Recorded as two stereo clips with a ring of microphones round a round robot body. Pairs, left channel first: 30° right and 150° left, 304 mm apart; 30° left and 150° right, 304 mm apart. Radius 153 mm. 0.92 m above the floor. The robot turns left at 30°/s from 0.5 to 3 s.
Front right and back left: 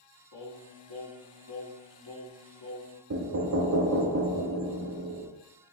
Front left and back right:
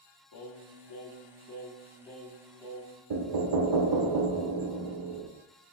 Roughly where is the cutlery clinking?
I don't hear cutlery clinking.